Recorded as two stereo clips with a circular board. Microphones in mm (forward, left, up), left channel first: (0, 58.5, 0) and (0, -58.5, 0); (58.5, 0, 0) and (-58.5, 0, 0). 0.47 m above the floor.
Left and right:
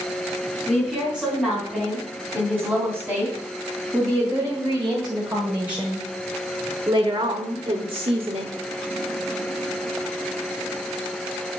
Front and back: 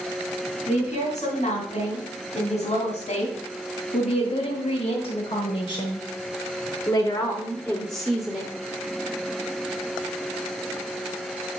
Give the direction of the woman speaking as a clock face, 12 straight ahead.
12 o'clock.